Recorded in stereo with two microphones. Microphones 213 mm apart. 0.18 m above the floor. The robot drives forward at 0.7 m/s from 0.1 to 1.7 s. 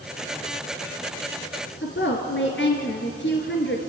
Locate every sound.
1.8 s a woman speaking: 55° left (ahead or behind), 2.5 m